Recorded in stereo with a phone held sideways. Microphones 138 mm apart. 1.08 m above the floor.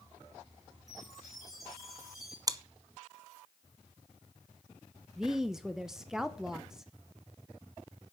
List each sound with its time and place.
0.9 s a chime: centre (ahead or behind), 5 m
2.5 s chewing: 25° right (ahead or behind), 0.6 m
5.2 s a woman speaking: 5° right (ahead or behind), 0.7 m